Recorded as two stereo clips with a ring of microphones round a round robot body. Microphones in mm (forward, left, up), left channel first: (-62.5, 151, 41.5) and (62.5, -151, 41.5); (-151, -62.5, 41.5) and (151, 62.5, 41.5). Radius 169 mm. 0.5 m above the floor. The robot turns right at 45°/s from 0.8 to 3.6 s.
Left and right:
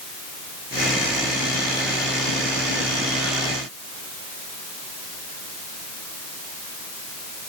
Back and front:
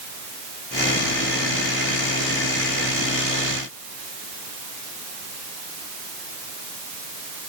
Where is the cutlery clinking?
I don't hear cutlery clinking.